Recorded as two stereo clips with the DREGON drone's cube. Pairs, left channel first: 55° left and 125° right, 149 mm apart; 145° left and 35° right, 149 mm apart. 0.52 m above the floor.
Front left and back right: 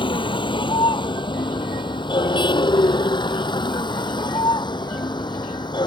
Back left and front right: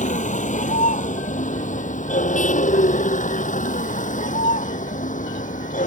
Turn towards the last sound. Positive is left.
turn(degrees=115)